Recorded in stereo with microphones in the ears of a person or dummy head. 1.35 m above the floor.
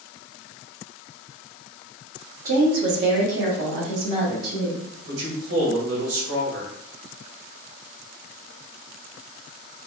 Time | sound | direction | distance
2.5 | a woman speaking | 45° right (ahead or behind) | 0.8 m
5.1 | a man speaking | 75° right (ahead or behind) | 1.4 m